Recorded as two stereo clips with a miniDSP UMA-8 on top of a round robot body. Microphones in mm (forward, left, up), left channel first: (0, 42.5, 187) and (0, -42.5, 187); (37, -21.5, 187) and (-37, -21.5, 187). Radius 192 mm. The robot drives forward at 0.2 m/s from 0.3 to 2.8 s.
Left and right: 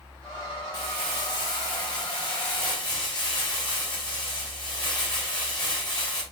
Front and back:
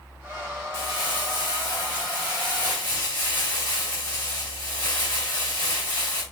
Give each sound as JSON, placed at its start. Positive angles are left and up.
{"t": 0.7, "sound": "crumpling", "azimuth_deg": 55, "distance_m": 4.5}